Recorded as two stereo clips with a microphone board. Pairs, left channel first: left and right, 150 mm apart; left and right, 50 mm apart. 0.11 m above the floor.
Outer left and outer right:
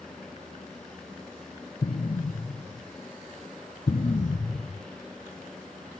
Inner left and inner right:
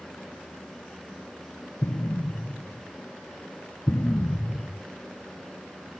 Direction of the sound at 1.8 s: 60° left (ahead or behind).